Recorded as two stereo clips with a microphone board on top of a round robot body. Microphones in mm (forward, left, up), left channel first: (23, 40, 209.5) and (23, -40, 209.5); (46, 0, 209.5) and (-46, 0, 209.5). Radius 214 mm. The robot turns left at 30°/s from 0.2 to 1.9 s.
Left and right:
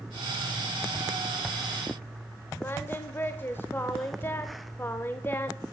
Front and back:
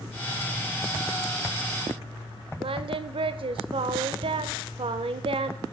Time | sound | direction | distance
2.6 | singing | 155° left | 0.5 m